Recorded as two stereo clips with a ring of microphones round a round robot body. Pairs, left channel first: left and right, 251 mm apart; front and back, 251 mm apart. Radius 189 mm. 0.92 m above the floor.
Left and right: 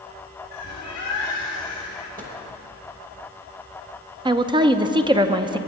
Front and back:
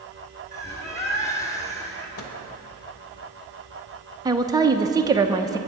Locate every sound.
0.5 s a bird: 75° left, 2.5 m
2.2 s a microwave: 30° right, 1.0 m
4.2 s a woman speaking: 130° right, 0.6 m